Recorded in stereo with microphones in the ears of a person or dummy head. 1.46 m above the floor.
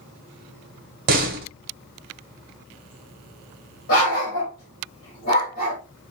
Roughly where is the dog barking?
Left.